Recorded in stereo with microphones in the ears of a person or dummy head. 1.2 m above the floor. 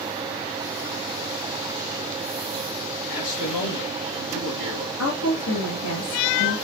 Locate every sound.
3.1 s a man speaking: 90° left, 1.5 m
5.0 s a woman speaking: 80° left, 2 m